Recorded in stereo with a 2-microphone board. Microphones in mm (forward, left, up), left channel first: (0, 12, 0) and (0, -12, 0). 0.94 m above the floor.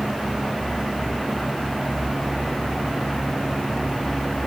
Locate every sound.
Only background noise.